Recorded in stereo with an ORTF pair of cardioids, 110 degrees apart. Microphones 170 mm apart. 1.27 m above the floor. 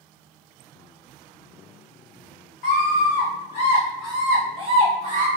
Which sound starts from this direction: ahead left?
A scream, at 2.6 s.